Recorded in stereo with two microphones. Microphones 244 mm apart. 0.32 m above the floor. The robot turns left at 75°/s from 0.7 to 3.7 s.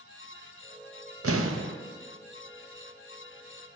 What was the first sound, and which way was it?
An explosion, 90° right.